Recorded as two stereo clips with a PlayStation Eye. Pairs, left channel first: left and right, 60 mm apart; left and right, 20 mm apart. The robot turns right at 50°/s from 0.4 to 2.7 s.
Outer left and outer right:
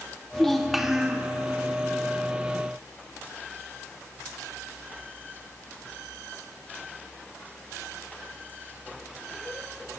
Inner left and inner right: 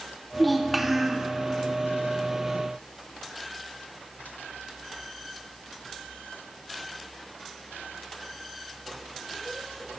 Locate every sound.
0.3 s a child speaking: 170° left, 1.6 m; by 1.3 s 150° right, 1.6 m